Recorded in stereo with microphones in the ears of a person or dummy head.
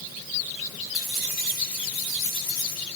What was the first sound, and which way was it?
Keys jangling, 5° right (ahead or behind).